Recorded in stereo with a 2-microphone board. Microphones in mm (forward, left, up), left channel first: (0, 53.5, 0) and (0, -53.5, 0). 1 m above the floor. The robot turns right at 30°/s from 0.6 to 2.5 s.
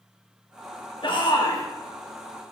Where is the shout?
55° left (ahead or behind), 1.6 m; by 1.6 s 35° left (ahead or behind), 1.6 m.